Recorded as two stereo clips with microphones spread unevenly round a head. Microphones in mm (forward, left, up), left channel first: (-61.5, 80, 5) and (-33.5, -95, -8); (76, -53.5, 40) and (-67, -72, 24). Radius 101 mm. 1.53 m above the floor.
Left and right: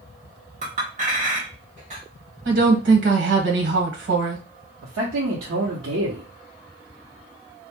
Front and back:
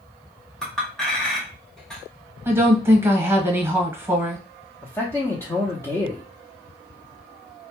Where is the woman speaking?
100° right, 1.1 m.